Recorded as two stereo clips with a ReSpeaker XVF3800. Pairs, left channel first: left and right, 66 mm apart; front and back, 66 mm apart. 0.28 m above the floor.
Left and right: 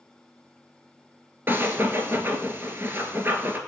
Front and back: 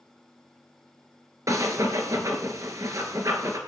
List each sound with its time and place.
1.5 s breathing: 145° right, 1.6 m